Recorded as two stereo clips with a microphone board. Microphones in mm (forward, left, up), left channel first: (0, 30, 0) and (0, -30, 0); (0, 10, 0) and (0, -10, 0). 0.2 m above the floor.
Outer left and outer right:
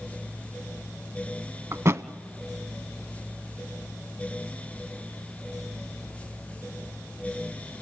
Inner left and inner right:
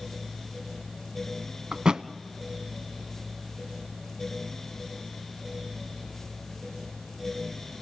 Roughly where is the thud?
Right.